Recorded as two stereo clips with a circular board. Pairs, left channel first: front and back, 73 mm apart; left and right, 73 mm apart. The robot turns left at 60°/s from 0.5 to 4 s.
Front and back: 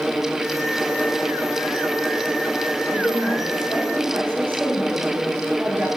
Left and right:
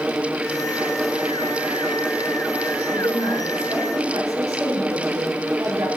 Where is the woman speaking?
60° right, 5 m; by 5.9 s 125° right, 5 m.